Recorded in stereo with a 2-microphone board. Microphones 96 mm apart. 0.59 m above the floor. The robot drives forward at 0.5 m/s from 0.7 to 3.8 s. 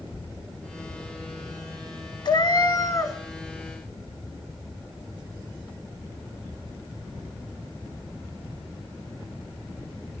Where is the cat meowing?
50° left (ahead or behind), 0.6 m; by 3.2 s 35° left (ahead or behind), 0.9 m.